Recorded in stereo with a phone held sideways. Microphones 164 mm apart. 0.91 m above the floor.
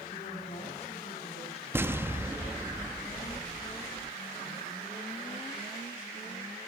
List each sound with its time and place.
0.1 s a woman speaking: 40° left (ahead or behind), 6.5 m
1.7 s an explosion: 15° right (ahead or behind), 0.7 m